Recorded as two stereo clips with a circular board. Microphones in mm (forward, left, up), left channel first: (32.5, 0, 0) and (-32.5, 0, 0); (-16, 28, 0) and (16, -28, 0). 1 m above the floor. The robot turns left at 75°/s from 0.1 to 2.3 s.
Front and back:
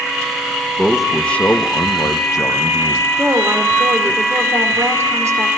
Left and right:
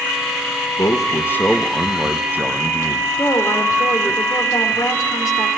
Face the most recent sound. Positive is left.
turn(degrees=140)